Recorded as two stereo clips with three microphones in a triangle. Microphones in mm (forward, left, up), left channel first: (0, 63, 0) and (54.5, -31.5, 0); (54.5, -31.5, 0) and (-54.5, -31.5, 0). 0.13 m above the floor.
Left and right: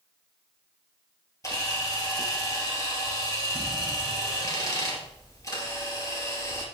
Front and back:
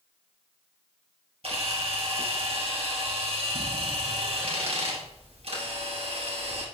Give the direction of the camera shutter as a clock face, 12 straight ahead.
6 o'clock.